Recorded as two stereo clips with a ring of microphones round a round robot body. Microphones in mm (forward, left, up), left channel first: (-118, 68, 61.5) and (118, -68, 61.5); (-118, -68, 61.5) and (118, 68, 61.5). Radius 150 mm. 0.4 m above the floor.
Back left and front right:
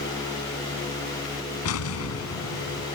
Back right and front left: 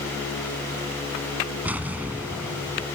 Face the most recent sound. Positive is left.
turn(degrees=115)